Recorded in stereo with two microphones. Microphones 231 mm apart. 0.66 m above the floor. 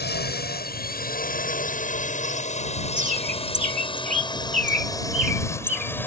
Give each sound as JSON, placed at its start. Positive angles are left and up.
{"t": 0.0, "sound": "a drone", "side_deg": 50}
{"t": 3.0, "sound": "a bird", "side_deg": -35}